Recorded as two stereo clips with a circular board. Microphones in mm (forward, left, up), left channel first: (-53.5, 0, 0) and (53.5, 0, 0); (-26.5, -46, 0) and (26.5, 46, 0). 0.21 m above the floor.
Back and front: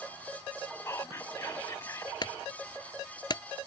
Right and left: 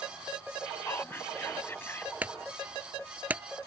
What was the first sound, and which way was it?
Whispering, 165° right.